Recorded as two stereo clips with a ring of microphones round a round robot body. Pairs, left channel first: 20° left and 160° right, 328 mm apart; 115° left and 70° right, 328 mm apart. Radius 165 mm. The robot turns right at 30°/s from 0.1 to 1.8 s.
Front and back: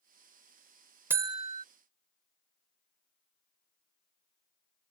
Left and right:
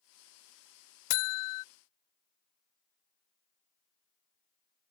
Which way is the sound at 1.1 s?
120° left.